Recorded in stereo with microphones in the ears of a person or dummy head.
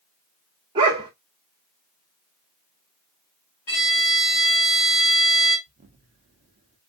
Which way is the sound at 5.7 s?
35° right (ahead or behind).